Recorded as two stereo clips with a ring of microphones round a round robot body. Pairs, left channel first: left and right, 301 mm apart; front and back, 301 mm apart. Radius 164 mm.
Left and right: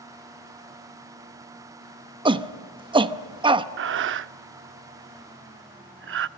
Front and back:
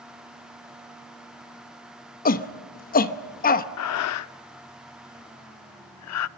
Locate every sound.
2.2 s a shout: 30° right, 1.0 m
3.8 s breathing: 35° right, 0.6 m